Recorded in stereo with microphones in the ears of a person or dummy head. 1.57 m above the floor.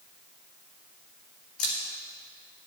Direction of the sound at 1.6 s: 50° left (ahead or behind).